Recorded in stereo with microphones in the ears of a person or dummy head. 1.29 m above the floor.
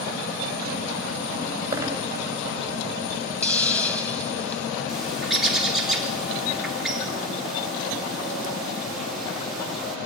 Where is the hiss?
10° left (ahead or behind), 5 m.